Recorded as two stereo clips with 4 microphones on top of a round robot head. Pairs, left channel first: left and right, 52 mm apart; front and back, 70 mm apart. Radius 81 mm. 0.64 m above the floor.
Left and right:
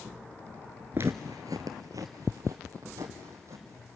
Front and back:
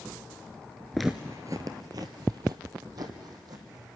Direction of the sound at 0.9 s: 80° right.